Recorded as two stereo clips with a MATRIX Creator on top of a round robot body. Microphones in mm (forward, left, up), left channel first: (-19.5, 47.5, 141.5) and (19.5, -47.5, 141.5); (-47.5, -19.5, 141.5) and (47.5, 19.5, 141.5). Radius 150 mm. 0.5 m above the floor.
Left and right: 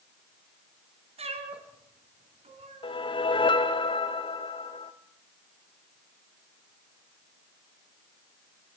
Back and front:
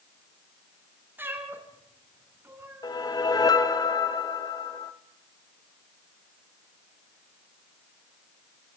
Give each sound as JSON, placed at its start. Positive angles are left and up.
{"t": 1.2, "sound": "a cat meowing", "azimuth_deg": -50, "distance_m": 3.0}
{"t": 2.8, "sound": "a whoosh", "azimuth_deg": 150, "distance_m": 1.3}